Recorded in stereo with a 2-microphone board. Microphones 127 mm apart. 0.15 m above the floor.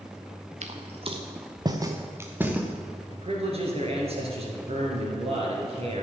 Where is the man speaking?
55° right (ahead or behind), 3 m.